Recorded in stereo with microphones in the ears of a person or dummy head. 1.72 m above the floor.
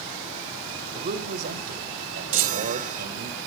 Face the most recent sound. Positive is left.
turn(degrees=-40)  # may be behind; listen again after turning